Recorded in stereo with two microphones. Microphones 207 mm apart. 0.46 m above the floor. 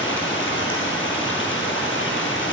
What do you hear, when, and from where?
0.0 s running water: 70° left (ahead or behind), 1.8 m